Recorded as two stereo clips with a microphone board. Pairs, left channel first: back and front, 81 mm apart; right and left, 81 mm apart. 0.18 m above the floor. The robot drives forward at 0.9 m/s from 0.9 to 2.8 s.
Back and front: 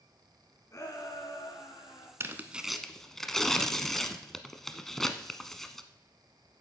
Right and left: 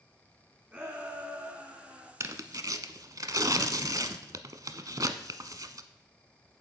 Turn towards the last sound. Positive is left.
turn(degrees=95)